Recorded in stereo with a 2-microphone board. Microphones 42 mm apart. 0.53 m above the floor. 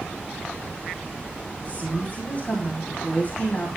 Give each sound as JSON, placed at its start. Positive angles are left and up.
{"t": 1.6, "sound": "a woman speaking", "side_deg": 40, "distance_m": 3.5}